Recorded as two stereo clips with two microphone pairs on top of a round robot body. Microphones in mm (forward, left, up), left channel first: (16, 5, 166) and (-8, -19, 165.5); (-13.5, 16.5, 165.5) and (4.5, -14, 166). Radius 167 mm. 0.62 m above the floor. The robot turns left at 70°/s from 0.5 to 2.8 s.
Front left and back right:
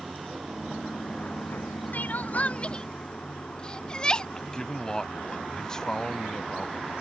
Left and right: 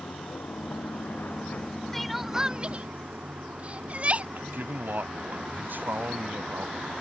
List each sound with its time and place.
0.0 s running water: 150° left; by 7.0 s 15° right
1.9 s crying: 45° left; by 4.2 s 15° right
4.3 s a man speaking: 30° right